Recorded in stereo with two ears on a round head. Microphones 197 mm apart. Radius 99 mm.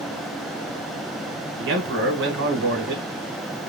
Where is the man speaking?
50° right (ahead or behind), 1.4 m.